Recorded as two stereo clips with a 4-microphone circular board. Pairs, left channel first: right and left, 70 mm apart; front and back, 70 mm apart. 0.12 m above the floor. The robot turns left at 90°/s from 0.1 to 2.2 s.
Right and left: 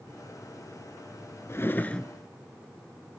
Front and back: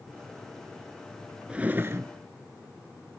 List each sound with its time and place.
1.5 s a drawer: 115° right, 0.5 m; by 2.1 s 170° right, 0.5 m